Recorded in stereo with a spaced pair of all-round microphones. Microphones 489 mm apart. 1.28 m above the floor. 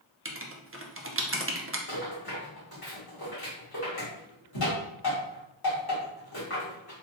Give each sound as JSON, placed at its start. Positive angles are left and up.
{"t": 0.2, "sound": "writing", "side_deg": -30, "distance_m": 0.5}
{"t": 1.9, "sound": "a rattle", "side_deg": 50, "distance_m": 1.8}